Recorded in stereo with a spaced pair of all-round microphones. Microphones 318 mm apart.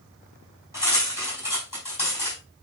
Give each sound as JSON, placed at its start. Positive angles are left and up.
{"t": 0.7, "sound": "cutlery clinking", "side_deg": 75, "distance_m": 4.0}